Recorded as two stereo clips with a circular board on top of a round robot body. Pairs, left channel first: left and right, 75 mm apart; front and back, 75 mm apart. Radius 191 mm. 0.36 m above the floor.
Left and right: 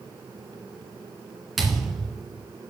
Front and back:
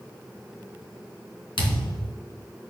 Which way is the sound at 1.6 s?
5° right.